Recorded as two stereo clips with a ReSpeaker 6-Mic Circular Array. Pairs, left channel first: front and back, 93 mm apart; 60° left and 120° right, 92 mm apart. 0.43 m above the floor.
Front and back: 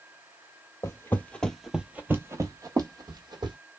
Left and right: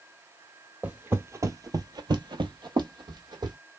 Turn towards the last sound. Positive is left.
turn(degrees=-155)